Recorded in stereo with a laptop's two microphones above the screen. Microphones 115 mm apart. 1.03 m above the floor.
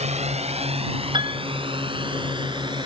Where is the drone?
80° right; by 2.9 s 45° right (ahead or behind).